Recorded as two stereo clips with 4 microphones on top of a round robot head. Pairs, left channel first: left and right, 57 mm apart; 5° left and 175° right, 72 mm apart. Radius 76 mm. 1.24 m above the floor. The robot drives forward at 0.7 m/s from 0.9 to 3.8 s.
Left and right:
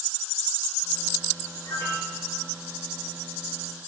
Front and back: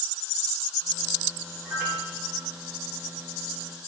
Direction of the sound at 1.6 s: 115° left.